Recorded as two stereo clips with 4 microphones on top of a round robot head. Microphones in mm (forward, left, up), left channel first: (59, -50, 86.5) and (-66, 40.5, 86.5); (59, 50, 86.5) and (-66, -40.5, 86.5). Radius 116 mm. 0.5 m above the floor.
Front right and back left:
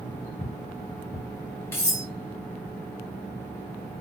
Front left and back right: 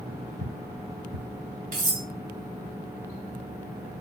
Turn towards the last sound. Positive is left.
turn(degrees=-110)